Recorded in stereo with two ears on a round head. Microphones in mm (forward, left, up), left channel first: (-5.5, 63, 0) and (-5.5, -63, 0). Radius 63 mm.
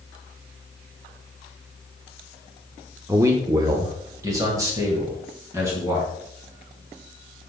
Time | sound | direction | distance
3.1 | a man speaking | 15° right (ahead or behind) | 0.8 m